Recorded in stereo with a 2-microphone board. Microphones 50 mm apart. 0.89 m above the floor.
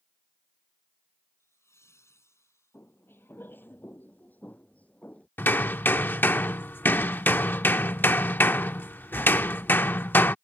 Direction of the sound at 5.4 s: 40° left (ahead or behind).